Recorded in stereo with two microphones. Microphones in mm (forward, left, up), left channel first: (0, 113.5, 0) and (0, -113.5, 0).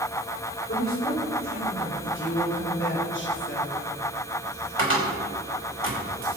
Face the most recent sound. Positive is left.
turn(degrees=-70)  # may be behind; listen again after turning